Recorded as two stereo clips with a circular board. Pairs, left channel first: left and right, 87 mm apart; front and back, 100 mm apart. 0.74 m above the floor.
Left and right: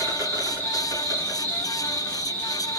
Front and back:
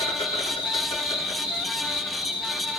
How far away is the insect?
About 2 m.